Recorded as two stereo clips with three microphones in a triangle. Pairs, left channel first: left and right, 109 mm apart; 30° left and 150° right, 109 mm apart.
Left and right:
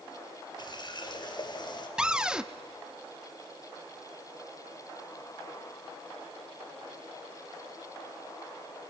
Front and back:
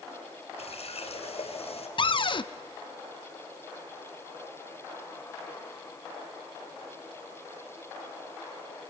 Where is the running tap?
45° left, 2.5 m.